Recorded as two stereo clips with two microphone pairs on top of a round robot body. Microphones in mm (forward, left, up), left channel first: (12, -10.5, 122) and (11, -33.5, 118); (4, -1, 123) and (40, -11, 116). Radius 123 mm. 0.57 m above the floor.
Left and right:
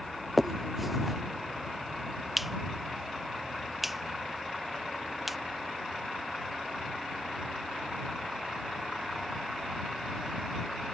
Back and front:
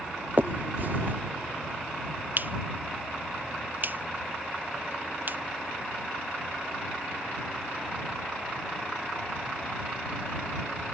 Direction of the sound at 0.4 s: 15° right.